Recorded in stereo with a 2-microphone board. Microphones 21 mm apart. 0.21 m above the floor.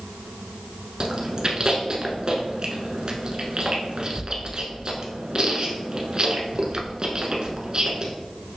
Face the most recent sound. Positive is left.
turn(degrees=-45)  # may be behind; listen again after turning